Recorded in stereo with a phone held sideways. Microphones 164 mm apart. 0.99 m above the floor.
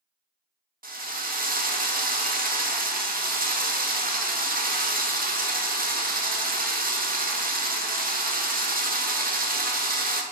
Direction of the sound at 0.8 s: 65° right (ahead or behind).